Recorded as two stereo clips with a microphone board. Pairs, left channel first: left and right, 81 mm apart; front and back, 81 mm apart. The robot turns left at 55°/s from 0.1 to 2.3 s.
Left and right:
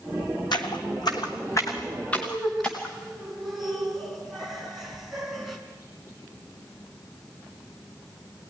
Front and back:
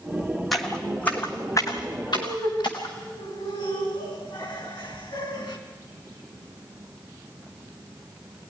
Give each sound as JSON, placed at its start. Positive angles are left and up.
{"t": 0.5, "sound": "footsteps", "azimuth_deg": 90, "distance_m": 1.6}
{"t": 2.1, "sound": "laughter", "azimuth_deg": 15, "distance_m": 5.0}
{"t": 4.8, "sound": "a bird", "azimuth_deg": 50, "distance_m": 10.0}